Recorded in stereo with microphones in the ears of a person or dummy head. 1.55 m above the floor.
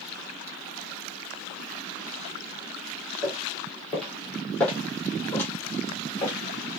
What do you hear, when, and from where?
3.2 s footsteps: 5° right (ahead or behind), 2 m; by 6.4 s 20° left (ahead or behind), 3.5 m